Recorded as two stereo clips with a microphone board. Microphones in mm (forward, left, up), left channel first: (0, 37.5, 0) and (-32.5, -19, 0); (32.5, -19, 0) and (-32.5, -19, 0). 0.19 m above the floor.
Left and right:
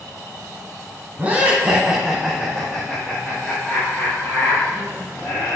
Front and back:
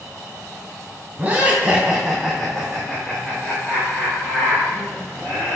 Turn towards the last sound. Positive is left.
turn(degrees=30)